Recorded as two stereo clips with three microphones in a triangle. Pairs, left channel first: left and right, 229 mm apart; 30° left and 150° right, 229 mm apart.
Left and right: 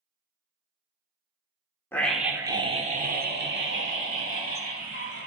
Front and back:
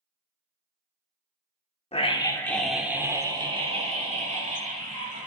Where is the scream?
20° left, 0.8 m; by 5.3 s 100° right, 2.0 m.